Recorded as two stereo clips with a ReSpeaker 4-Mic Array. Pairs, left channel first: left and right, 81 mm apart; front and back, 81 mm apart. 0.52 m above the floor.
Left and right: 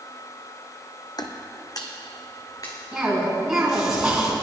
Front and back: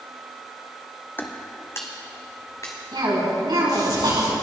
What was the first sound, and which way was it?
Footsteps, 65° left.